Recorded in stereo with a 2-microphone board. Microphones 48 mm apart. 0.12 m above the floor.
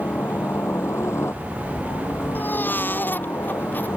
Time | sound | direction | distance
0.0 | a helicopter | 60° left (ahead or behind) | ?
2.4 | a baby crying | 40° left (ahead or behind) | ?